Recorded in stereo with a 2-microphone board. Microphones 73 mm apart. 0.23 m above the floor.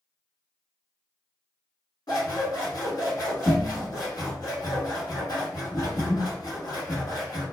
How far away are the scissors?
About 1.3 m.